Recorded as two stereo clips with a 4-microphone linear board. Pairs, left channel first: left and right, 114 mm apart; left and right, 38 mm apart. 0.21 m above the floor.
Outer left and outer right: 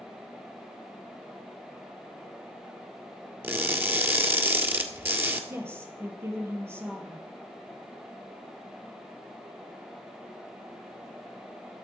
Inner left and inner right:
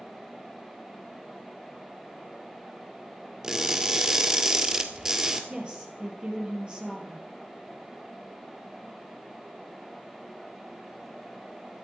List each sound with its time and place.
3.4 s crushing: 20° right (ahead or behind), 1.6 m
5.5 s a woman speaking: 20° right (ahead or behind), 4 m